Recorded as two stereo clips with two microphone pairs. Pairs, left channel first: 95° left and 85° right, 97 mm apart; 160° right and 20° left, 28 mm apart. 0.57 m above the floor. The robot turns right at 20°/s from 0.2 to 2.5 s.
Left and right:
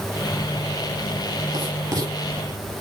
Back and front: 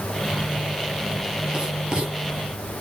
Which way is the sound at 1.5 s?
40° right.